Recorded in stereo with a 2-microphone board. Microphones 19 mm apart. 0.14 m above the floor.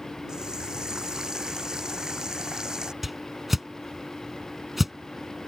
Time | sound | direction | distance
0.3 | a running tap | 35° right (ahead or behind) | ?
3.0 | a whoosh | 10° right (ahead or behind) | ?